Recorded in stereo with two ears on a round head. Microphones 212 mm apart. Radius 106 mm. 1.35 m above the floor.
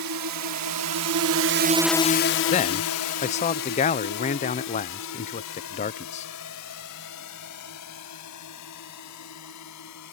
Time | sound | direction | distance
0.0 | a drone | 85° right | ?
2.5 | a man speaking | 30° left (ahead or behind) | ?